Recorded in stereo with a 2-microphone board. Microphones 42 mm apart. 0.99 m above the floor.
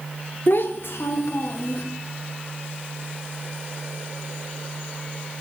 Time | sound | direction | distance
0.5 | a child speaking | 50° left (ahead or behind) | 0.8 m